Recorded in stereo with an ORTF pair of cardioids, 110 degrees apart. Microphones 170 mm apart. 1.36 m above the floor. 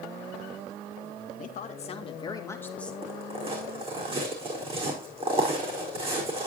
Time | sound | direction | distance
1.4 | a woman speaking | 50° left | 2.0 m
3.0 | footsteps | 35° right | 4.5 m